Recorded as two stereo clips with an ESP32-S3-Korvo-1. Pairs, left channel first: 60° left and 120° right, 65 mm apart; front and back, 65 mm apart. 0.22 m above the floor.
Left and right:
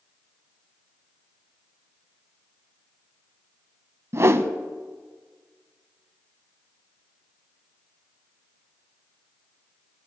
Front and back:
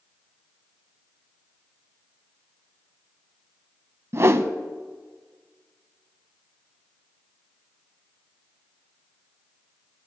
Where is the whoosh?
150° right, 0.5 m.